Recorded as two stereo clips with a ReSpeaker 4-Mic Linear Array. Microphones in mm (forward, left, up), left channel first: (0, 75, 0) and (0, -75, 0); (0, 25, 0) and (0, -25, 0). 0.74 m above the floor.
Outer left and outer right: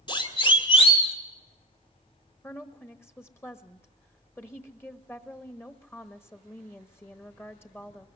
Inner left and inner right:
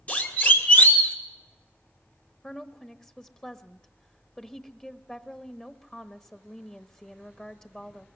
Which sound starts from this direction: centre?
A woman speaking, at 2.4 s.